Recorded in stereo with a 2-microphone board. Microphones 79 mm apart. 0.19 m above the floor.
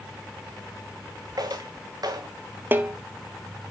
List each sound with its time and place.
1.4 s footsteps: 60° right (ahead or behind), 1.5 m
2.7 s a snare drum: 25° right (ahead or behind), 0.6 m